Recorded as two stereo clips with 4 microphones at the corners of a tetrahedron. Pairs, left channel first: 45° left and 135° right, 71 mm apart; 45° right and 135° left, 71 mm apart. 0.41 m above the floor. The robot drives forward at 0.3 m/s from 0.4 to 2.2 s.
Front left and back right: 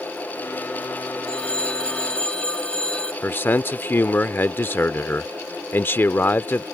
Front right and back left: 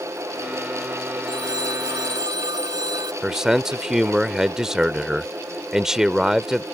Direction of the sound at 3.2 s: 60° left.